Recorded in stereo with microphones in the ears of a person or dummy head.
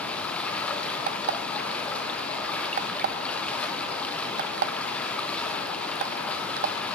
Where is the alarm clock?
45° right (ahead or behind), 0.5 m.